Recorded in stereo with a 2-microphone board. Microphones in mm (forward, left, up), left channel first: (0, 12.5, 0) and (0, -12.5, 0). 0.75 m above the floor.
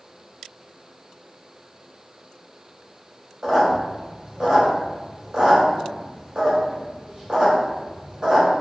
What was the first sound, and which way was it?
A squeak, 45° right (ahead or behind).